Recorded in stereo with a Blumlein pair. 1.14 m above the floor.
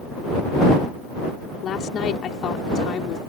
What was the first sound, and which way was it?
A woman speaking, 25° left.